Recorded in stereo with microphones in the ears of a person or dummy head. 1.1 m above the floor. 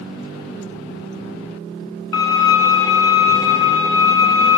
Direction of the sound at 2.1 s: 15° left (ahead or behind).